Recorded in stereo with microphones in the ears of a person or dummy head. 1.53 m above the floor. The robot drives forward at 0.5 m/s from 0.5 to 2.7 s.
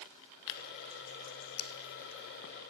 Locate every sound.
0.5 s tearing paper: 65° left (ahead or behind), 0.8 m; by 2.5 s 35° left (ahead or behind), 1.1 m